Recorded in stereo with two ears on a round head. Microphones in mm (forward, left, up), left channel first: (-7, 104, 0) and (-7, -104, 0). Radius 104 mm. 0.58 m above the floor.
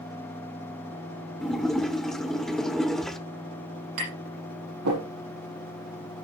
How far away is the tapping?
About 6.5 m.